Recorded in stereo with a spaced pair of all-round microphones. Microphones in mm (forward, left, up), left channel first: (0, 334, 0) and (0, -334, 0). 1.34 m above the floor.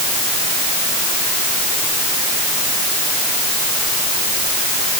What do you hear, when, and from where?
Only background noise.